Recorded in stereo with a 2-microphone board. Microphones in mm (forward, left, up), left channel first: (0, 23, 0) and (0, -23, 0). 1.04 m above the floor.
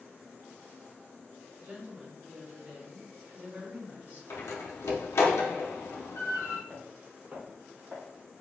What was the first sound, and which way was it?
A woman speaking, 55° right (ahead or behind).